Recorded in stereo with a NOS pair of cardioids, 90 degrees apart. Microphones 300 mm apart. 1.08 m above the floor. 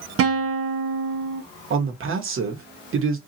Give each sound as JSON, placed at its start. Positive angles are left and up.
{"t": 0.2, "sound": "a guitar", "azimuth_deg": -50, "distance_m": 0.8}
{"t": 1.7, "sound": "a man speaking", "azimuth_deg": -45, "distance_m": 1.0}